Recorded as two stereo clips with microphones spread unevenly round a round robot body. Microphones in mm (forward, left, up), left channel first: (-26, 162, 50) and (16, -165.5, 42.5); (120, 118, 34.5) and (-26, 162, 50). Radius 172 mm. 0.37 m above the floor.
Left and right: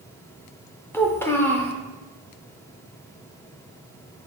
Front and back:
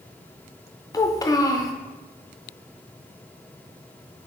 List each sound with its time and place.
0.9 s a child speaking: 20° left, 0.5 m